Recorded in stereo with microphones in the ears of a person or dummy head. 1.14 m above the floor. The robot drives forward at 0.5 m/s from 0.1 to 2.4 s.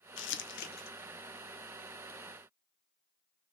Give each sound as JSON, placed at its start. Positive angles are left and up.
{"t": 0.2, "sound": "crumpling", "side_deg": 60, "distance_m": 0.5}